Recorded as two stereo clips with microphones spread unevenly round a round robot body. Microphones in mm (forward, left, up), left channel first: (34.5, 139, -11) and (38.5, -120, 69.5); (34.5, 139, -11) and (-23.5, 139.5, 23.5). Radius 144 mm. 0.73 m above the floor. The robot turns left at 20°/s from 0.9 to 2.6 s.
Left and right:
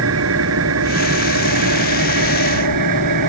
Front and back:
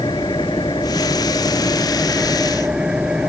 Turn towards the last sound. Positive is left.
turn(degrees=-95)